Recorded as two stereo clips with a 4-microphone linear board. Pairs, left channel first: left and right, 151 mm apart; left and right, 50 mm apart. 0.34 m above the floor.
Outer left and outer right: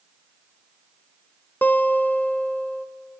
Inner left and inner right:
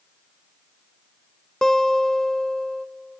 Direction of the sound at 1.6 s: 10° left (ahead or behind).